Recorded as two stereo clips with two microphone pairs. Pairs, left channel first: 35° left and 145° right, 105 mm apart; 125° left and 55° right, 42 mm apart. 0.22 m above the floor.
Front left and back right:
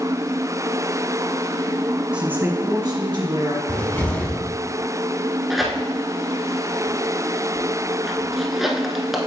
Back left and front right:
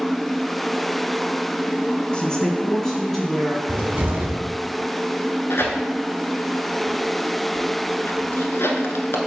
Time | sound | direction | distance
2.1 | a woman speaking | 150° left | 1.3 m
3.7 | a cupboard door | 30° right | 1.1 m
5.5 | tearing paper | 130° left | 1.0 m